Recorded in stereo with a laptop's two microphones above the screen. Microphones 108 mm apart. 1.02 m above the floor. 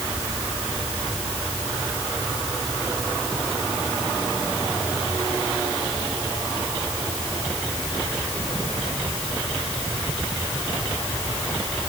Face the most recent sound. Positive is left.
No sound to turn to.